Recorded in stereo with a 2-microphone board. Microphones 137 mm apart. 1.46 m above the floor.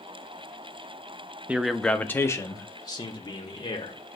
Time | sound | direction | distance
1.5 | a man speaking | 10° right (ahead or behind) | 0.6 m